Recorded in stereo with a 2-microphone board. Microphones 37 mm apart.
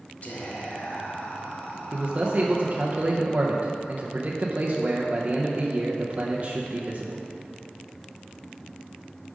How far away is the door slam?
I don't hear a door slam.